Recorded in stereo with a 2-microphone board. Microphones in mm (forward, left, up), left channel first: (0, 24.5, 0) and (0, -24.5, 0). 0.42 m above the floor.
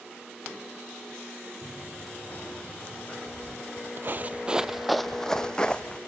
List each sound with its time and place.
1.6 s running footsteps: 35° left (ahead or behind), 5 m; by 3.2 s 30° left (ahead or behind), 7 m
3.3 s footsteps: 60° right (ahead or behind), 0.9 m; by 6.0 s 20° left (ahead or behind), 1.3 m